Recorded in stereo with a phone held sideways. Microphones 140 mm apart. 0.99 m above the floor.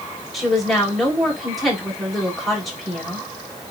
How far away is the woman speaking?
About 4.5 m.